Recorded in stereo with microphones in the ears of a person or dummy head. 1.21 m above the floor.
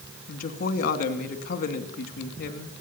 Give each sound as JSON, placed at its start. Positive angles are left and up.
{"t": 0.3, "sound": "a woman speaking", "side_deg": 50, "distance_m": 2.5}